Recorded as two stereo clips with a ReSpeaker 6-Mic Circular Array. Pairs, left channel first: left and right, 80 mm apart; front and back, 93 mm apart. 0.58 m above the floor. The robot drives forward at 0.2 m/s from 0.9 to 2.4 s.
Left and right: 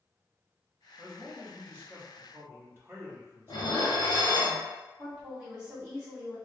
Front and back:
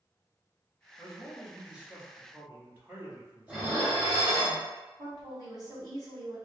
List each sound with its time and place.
1.0 s a man speaking: 90° right, 0.9 m; by 4.5 s 125° right, 0.9 m
3.5 s dishes clattering: 100° left, 0.7 m
5.0 s a woman speaking: 165° right, 1.5 m